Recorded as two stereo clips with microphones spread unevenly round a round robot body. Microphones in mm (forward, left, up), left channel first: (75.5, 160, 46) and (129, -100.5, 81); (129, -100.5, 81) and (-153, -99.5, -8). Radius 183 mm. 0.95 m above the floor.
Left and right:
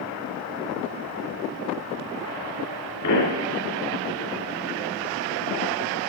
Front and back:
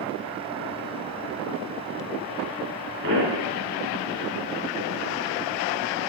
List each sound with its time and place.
3.0 s a pop: 125° left, 4 m